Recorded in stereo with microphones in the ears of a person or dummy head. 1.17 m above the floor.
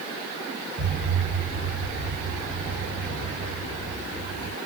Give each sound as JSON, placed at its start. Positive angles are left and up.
{"t": 0.8, "sound": "an explosion", "side_deg": -25, "distance_m": 1.2}